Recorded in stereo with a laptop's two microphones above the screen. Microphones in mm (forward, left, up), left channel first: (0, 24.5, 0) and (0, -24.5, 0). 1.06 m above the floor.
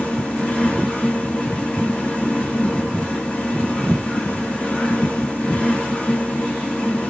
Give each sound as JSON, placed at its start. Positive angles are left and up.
{"t": 0.0, "sound": "a fan", "side_deg": 30, "distance_m": 0.7}